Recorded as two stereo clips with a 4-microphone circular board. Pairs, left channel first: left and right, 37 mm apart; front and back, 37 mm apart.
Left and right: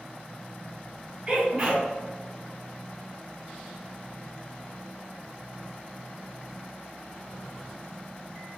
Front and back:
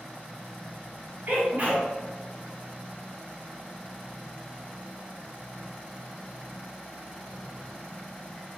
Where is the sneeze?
150° right, 1.4 m.